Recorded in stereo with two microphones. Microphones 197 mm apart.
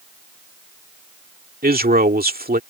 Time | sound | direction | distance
1.6 | a man speaking | 50° right (ahead or behind) | ?